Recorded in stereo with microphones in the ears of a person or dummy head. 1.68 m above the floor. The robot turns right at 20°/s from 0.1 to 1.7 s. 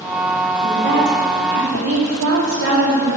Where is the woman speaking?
55° right (ahead or behind), 4 m; by 3.2 s 75° right (ahead or behind), 4 m.